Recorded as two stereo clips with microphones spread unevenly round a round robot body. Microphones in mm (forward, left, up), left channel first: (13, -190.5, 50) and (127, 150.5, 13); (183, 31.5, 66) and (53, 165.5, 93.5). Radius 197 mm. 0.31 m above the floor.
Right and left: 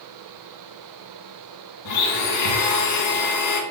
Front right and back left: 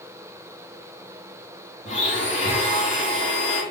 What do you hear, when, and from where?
1.9 s a blender: 105° right, 1.2 m